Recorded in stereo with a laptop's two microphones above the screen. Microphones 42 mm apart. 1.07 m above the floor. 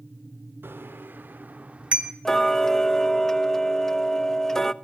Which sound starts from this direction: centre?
Ticking, at 2.2 s.